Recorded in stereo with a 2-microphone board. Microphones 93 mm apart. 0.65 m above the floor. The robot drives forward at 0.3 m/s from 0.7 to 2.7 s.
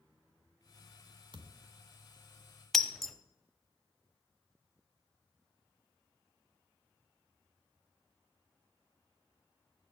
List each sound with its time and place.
1.3 s a thud: 55° right (ahead or behind), 0.9 m; by 1.7 s 50° right (ahead or behind), 1.0 m
2.7 s breaking glass: 5° left (ahead or behind), 0.6 m